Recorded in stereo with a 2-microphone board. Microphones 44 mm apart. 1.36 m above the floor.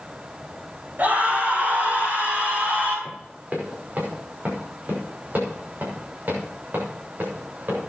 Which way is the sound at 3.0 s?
35° right (ahead or behind).